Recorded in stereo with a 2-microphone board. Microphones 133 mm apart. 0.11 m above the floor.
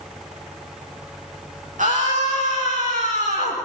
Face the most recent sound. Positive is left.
turn(degrees=-60)  # may be behind; listen again after turning